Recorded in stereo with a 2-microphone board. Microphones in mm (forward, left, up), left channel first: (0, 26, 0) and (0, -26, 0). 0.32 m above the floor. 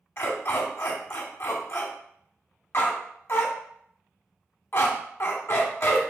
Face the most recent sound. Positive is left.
turn(degrees=50)  # may be behind; listen again after turning